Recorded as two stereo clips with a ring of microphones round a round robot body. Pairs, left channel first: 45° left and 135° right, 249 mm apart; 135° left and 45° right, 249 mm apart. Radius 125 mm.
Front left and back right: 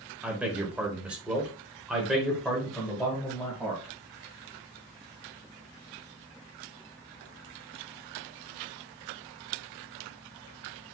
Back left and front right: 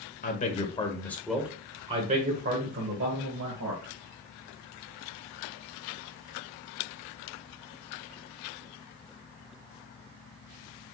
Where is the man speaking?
145° left, 1.2 m; by 3.9 s 45° right, 1.9 m.